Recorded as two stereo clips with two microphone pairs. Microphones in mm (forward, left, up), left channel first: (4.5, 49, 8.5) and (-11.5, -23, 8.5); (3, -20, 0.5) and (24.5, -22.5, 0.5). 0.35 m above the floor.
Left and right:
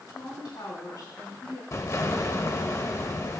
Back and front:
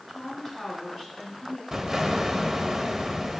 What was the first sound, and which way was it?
A woman speaking, 95° left.